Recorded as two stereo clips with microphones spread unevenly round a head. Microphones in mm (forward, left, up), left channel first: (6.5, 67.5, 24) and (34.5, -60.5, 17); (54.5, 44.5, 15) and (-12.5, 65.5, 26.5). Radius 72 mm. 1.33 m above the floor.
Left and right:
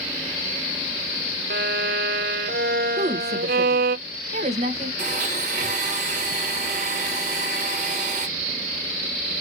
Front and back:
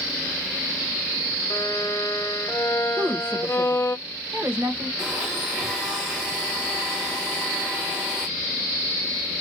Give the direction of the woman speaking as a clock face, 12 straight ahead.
4 o'clock.